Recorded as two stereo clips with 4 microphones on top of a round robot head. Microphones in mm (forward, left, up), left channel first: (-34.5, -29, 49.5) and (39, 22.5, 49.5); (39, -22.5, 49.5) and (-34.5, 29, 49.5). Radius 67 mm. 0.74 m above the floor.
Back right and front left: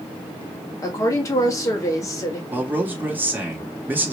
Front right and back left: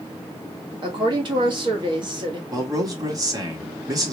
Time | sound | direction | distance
0.8 | a woman speaking | 165° left | 1.6 m
2.5 | a man speaking | 100° left | 1.6 m